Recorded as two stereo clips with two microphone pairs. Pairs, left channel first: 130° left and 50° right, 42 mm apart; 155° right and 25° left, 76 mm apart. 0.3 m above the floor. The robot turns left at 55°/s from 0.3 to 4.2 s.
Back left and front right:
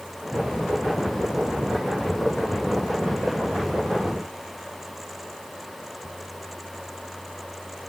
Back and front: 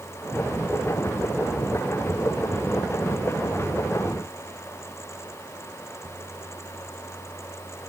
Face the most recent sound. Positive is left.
No sound to turn to.